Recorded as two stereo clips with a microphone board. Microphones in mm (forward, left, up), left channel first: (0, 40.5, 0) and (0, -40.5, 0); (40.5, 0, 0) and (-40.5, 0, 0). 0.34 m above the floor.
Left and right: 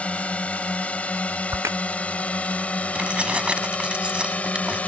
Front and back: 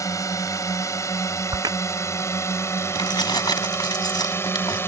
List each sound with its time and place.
0.0 s a drone: 20° left; by 4.9 s 30° left
1.5 s a crack: 145° right
3.0 s keys jangling: 15° right